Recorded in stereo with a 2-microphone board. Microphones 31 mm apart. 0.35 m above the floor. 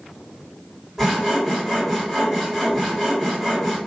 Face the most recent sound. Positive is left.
turn(degrees=-5)  # may be behind; listen again after turning